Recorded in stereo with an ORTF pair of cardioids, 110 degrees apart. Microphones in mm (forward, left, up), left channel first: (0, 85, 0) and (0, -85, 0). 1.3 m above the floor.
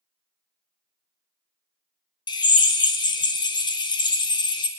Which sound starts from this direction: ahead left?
A drill, at 2.3 s.